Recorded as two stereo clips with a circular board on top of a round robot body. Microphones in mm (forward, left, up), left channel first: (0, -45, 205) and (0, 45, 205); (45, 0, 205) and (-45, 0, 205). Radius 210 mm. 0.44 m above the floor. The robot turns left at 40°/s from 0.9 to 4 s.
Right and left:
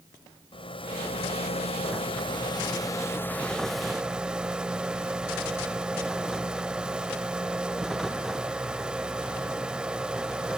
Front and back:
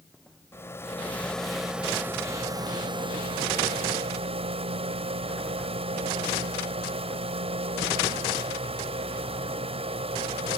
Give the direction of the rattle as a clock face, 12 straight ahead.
2 o'clock.